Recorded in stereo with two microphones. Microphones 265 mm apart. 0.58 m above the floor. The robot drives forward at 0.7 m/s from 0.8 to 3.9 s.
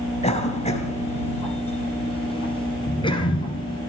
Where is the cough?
25° left (ahead or behind), 4 m; by 3.8 s 15° left (ahead or behind), 6 m.